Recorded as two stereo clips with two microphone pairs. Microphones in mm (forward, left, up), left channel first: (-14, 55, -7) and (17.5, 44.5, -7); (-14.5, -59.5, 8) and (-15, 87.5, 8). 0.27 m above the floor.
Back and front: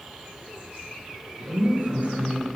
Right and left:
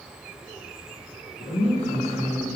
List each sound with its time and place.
1.4 s a woman speaking: 50° right, 4 m; by 2.5 s 60° right, 4 m